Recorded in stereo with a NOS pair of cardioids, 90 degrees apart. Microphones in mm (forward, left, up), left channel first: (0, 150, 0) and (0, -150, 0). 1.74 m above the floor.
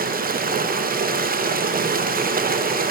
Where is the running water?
30° right, 1.1 m.